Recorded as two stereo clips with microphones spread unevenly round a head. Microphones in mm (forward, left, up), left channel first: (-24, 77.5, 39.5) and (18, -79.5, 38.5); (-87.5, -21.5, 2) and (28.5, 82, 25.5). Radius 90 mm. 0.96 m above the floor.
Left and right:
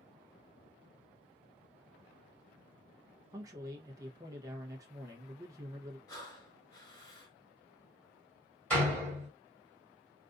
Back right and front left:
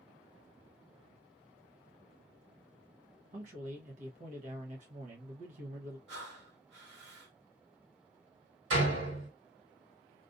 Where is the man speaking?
10° right, 0.8 m.